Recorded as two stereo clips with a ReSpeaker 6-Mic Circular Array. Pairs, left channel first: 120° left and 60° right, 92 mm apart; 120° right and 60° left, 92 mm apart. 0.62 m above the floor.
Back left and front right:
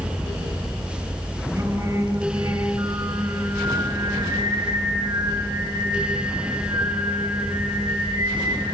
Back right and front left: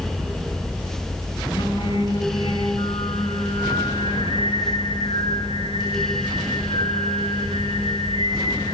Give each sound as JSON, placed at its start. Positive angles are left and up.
{"t": 1.6, "sound": "singing", "azimuth_deg": -110, "distance_m": 4.0}